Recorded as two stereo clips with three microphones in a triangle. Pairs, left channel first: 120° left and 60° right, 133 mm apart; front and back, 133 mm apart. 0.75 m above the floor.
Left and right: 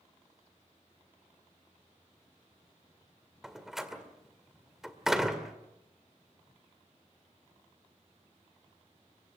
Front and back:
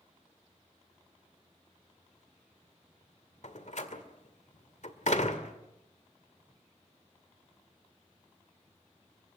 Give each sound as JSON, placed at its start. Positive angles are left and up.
{"t": 3.4, "sound": "a door slam", "azimuth_deg": 25, "distance_m": 1.9}